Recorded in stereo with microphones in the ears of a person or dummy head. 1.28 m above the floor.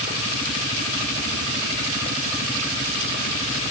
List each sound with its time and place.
Only background noise.